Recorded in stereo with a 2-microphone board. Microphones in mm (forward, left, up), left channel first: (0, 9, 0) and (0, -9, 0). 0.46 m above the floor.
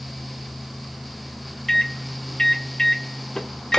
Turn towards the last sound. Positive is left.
turn(degrees=30)  # may be behind; listen again after turning